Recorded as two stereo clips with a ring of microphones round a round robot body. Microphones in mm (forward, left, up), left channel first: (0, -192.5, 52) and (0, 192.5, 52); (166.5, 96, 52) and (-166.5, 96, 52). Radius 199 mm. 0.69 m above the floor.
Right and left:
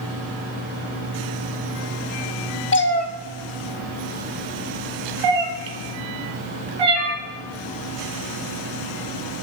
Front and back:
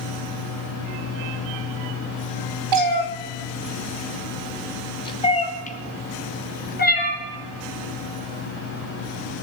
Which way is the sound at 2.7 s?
150° right.